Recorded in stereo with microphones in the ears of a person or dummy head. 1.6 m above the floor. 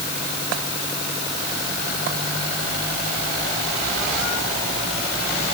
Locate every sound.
Only background noise.